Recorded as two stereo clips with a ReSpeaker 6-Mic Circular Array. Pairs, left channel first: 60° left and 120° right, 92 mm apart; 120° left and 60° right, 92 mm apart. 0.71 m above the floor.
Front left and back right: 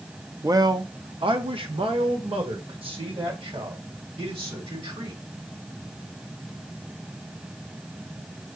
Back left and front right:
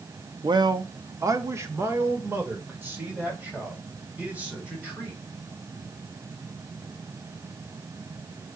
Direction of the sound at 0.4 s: 75° right.